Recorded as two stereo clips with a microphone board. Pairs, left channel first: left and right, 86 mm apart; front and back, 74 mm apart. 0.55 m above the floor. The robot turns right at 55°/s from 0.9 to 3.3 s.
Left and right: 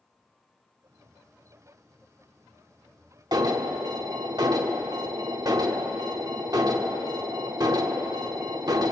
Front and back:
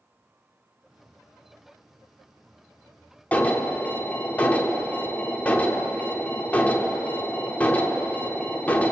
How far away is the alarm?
About 0.8 m.